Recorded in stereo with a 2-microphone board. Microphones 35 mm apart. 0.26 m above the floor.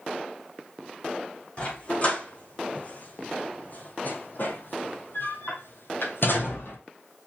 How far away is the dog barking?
About 4 m.